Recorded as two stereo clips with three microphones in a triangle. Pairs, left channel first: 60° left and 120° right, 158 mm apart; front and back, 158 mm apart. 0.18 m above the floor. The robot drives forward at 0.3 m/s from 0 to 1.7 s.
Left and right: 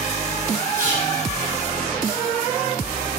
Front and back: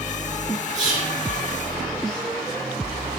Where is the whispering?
125° left, 2 m; by 1.2 s 130° left, 2 m.